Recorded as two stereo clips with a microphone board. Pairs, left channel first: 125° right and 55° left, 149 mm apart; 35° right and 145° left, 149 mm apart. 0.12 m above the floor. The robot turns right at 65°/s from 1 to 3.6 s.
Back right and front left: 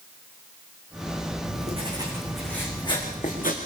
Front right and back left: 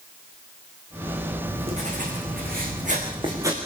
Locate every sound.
1.4 s writing: 85° left, 7 m; by 3.6 s 140° right, 7 m